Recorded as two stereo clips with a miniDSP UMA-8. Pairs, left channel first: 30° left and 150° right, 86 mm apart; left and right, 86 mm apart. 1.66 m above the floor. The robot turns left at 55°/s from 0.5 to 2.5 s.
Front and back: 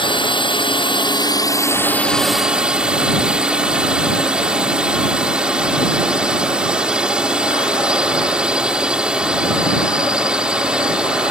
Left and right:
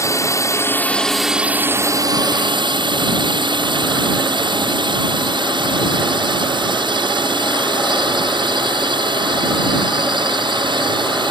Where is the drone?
40° left; by 11.3 s 70° right.